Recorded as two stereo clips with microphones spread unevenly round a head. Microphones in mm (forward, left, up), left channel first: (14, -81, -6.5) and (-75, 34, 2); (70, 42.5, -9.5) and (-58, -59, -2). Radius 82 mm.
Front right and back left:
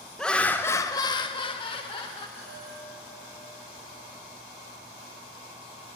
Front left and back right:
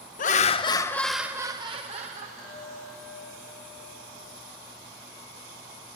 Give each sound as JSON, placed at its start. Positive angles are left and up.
{"t": 0.2, "sound": "laughter", "azimuth_deg": 30, "distance_m": 0.9}
{"t": 2.4, "sound": "a chime", "azimuth_deg": -30, "distance_m": 4.5}